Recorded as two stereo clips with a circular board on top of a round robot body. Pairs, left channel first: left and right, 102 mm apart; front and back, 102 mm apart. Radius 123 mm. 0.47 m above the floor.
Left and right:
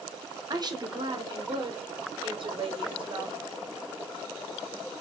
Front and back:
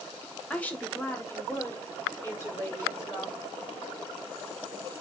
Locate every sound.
0.5 s a woman speaking: 70° right, 1.1 m; by 3.4 s 60° right, 2.5 m